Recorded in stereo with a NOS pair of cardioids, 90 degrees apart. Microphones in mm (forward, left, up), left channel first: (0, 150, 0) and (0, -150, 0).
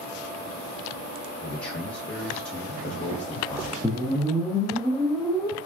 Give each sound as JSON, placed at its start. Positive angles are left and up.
{"t": 1.4, "sound": "a man speaking", "azimuth_deg": 20, "distance_m": 1.2}
{"t": 3.8, "sound": "a whoosh", "azimuth_deg": 5, "distance_m": 0.7}